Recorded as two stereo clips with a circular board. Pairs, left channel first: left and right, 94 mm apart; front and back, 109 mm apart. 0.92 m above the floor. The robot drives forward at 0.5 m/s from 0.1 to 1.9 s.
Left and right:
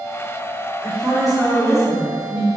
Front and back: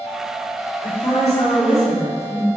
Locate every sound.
0.8 s a woman speaking: straight ahead, 1.9 m; by 2.5 s 5° right, 1.4 m